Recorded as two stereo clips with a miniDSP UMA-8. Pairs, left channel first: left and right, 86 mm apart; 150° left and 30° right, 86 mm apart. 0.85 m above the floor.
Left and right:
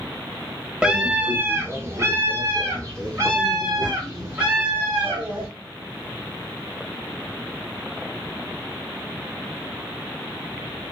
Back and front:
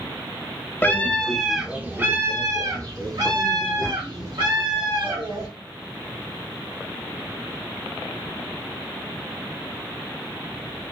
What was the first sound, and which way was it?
A scream, 165° right.